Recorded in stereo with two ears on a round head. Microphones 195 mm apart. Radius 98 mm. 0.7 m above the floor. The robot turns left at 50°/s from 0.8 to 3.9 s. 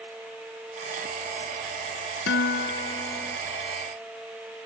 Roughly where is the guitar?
Ahead left.